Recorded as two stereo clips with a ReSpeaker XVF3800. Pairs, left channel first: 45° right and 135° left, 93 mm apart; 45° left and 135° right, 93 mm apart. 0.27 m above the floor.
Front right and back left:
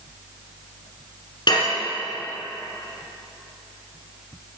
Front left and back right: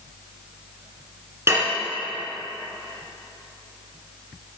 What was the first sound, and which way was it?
Dishes clattering, 75° right.